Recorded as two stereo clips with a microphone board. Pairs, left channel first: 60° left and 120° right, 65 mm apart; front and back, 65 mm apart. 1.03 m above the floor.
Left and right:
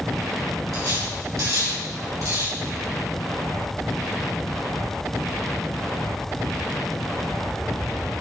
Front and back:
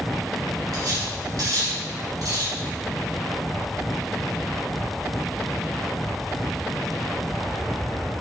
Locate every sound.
0.7 s cutlery clinking: 150° right, 3 m